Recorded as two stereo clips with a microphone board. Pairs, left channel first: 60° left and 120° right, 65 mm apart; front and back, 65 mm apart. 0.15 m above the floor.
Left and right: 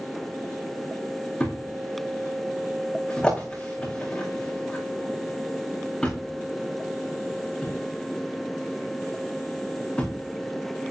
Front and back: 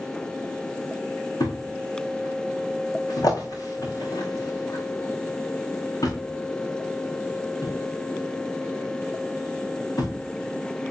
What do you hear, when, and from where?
1.4 s a thud: 15° right, 5 m